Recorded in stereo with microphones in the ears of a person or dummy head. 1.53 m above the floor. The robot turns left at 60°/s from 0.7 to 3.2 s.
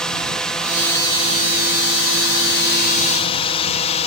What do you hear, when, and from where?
0.0 s a drone: centre (ahead or behind); by 4.1 s 30° left (ahead or behind)